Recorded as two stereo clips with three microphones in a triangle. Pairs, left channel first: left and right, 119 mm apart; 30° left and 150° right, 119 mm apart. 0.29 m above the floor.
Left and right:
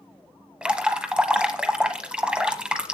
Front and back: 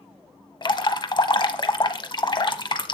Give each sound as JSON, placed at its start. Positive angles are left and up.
{"t": 0.6, "sound": "dripping", "azimuth_deg": -10, "distance_m": 0.9}